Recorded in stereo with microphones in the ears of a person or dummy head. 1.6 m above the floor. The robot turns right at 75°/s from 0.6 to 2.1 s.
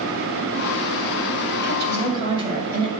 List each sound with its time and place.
1.6 s a woman speaking: 65° right, 1.8 m; by 2.9 s 30° right, 1.8 m